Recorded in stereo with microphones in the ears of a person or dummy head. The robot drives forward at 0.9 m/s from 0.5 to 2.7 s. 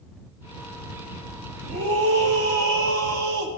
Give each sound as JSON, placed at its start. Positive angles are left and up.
{"t": 1.6, "sound": "a scream", "side_deg": -60, "distance_m": 1.3}